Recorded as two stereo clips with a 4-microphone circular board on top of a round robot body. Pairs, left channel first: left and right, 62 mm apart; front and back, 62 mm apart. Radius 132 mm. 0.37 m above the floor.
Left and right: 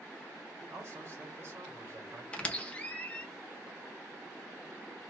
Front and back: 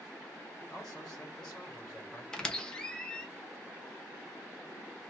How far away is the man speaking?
About 1.5 m.